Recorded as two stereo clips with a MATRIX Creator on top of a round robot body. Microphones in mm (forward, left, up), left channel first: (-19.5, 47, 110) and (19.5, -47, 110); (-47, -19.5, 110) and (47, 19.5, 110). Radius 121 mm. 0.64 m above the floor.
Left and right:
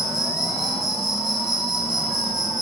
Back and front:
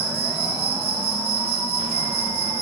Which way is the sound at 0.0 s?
20° left.